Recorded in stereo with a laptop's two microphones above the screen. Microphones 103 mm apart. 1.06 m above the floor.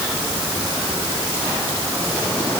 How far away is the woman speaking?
No woman speaking in this recording.